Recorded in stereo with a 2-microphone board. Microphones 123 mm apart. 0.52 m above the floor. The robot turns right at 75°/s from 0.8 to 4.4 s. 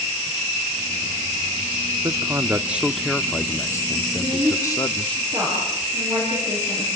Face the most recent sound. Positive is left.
turn(degrees=-40)  # may be behind; listen again after turning